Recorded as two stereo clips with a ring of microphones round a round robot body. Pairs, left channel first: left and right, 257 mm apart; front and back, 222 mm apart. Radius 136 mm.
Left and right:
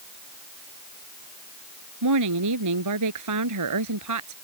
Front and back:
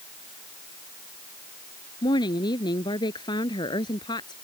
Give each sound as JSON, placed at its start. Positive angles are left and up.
{"t": 2.0, "sound": "a woman speaking", "azimuth_deg": -75}